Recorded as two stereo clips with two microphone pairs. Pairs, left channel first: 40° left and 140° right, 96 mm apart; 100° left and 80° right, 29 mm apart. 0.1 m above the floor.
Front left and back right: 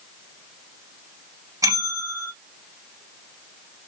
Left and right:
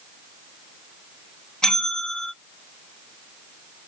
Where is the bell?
170° left, 2.5 m.